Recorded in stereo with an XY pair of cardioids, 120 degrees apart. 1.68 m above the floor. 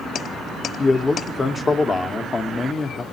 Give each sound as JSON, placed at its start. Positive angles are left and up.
{"t": 0.8, "sound": "a man speaking", "azimuth_deg": 30, "distance_m": 0.9}